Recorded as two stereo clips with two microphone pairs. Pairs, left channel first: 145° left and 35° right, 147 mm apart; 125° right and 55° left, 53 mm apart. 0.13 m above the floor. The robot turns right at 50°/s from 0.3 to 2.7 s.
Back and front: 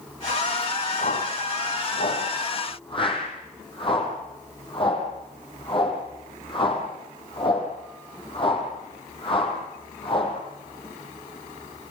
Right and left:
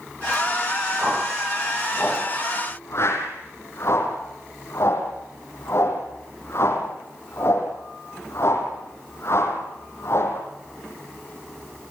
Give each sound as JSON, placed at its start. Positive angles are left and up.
{"t": 1.0, "sound": "a whoosh", "azimuth_deg": 115, "distance_m": 5.0}